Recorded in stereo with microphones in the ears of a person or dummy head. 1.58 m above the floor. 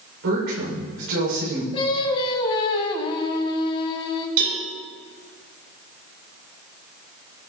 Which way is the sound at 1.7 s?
30° left (ahead or behind).